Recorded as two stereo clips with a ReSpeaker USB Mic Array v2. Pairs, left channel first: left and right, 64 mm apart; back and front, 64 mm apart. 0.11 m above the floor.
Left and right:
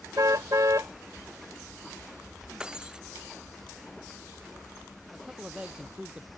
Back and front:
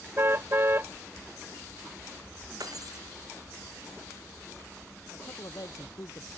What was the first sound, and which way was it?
A car horn, 50° right.